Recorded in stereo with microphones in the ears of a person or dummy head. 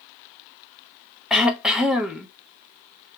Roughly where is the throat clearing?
Centre.